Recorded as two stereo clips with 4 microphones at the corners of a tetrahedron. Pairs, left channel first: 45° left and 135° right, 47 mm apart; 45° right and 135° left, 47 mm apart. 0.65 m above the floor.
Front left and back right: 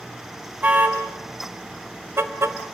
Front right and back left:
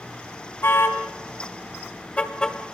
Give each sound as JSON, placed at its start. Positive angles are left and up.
{"t": 0.6, "sound": "a car horn", "azimuth_deg": -80, "distance_m": 3.0}